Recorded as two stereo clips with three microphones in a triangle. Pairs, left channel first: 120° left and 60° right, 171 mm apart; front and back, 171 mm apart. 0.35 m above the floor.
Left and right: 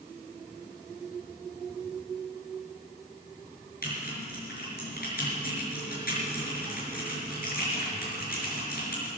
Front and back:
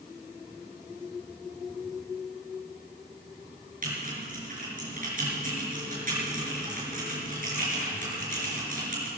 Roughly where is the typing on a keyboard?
Behind left.